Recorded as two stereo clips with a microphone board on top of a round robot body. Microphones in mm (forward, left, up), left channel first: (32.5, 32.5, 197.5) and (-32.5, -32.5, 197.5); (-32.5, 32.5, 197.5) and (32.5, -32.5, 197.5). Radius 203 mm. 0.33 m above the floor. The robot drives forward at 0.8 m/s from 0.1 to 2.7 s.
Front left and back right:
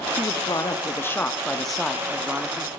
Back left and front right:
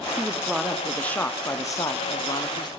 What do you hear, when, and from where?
0.2 s a man speaking: 30° left, 1.5 m; by 2.7 s 160° left, 1.7 m